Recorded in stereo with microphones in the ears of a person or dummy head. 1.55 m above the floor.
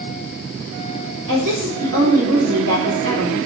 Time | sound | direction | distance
1.3 | a woman speaking | 75° right (ahead or behind) | 4 m